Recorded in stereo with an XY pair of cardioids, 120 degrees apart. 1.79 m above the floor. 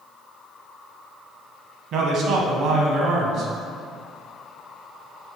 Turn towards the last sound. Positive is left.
turn(degrees=-65)